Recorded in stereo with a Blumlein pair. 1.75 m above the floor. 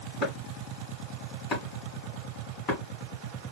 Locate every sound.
0.2 s chopping: 25° left, 1.8 m